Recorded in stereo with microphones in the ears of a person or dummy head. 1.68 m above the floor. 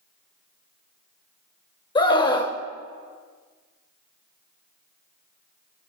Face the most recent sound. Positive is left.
turn(degrees=30)  # may be behind; listen again after turning